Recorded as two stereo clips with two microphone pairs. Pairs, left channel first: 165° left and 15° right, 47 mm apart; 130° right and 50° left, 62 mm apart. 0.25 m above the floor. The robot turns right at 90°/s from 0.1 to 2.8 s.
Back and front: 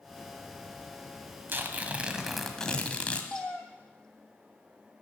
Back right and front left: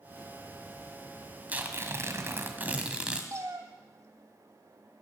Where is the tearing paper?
10° right, 1.5 m; by 3.2 s 110° left, 1.5 m.